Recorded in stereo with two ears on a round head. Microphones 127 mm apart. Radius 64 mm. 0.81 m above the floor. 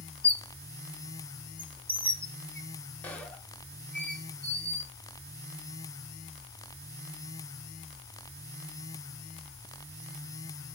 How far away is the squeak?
About 0.5 m.